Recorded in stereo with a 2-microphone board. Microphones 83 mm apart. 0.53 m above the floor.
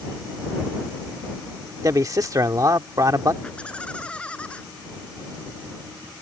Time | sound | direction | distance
1.8 | a man speaking | 45° right (ahead or behind) | ?
3.4 | laughter | 15° left (ahead or behind) | ?